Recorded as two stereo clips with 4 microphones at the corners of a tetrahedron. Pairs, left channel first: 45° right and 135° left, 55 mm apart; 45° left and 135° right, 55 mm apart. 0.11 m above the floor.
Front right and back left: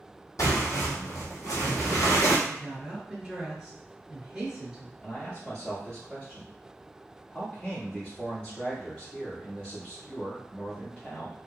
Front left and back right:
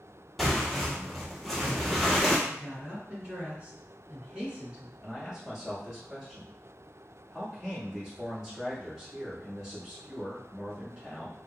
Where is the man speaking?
60° right, 1.5 m.